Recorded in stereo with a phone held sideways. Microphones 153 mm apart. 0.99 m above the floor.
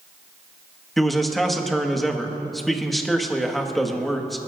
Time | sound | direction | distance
1.0 | a man speaking | centre (ahead or behind) | 1.3 m